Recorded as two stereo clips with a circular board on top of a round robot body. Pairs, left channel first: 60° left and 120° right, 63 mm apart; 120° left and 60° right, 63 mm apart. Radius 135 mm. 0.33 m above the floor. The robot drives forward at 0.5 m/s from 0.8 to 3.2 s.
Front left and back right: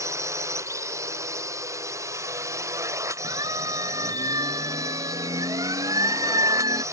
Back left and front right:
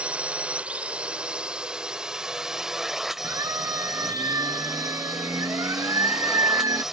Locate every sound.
0.0 s a drone: 130° right; by 6.9 s 145° right
3.2 s a siren: 100° right; by 6.8 s 95° right